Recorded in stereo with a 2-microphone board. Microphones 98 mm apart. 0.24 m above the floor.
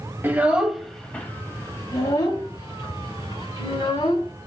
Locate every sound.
0.2 s a child speaking: 20° right (ahead or behind), 1.0 m; by 4.3 s 65° left (ahead or behind), 2.5 m